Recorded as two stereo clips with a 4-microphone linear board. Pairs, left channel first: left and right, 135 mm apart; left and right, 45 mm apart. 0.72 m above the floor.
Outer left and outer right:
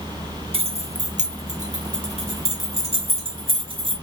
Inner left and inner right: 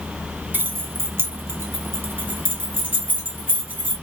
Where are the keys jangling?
45° right (ahead or behind), 0.8 m.